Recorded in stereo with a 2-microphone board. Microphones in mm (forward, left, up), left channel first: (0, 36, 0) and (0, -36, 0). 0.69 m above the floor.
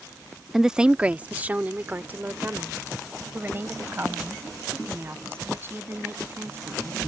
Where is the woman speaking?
5° right (ahead or behind); by 7.0 s 35° right (ahead or behind).